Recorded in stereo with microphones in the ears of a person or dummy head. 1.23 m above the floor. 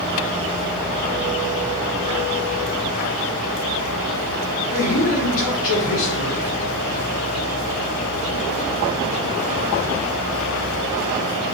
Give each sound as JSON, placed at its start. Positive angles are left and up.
{"t": 4.7, "sound": "a man speaking", "side_deg": 45, "distance_m": 1.8}